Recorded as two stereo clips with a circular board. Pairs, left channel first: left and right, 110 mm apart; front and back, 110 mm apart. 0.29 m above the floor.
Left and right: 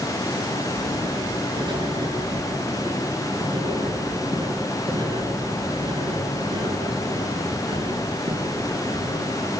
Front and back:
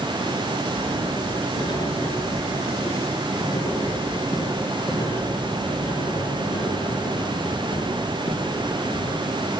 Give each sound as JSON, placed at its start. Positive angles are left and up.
{"t": 0.7, "sound": "writing", "azimuth_deg": -45, "distance_m": 5.0}